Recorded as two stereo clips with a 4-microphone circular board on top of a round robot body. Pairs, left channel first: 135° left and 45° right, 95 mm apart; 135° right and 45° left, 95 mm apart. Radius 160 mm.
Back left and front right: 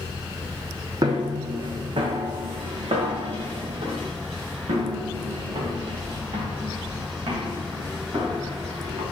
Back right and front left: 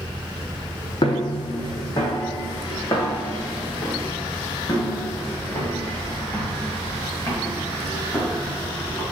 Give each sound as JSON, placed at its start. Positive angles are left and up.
{"t": 1.0, "sound": "footsteps", "azimuth_deg": -95, "distance_m": 1.0}